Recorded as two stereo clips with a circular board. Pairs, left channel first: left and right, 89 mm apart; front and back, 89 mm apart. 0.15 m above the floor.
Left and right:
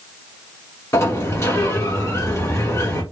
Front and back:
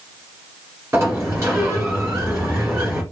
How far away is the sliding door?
About 1.9 m.